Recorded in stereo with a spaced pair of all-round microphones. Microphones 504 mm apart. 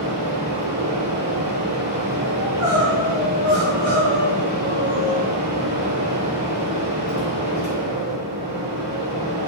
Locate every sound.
0.0 s a fan: 50° right (ahead or behind), 3 m
2.4 s crying: 35° right (ahead or behind), 3 m